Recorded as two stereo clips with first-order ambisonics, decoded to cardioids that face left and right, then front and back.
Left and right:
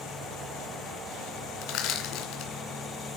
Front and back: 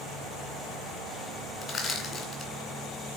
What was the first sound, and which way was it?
Crushing, 70° left.